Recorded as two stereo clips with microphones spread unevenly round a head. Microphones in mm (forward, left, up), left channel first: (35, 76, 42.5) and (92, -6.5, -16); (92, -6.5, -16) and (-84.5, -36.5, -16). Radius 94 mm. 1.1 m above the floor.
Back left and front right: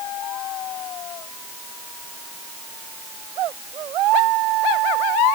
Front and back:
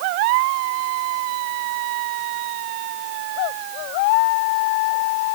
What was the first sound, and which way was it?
Only background noise.